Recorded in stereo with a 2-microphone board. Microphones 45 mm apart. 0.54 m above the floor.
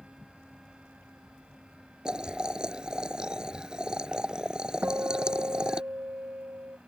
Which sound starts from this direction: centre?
Boiling, at 2.0 s.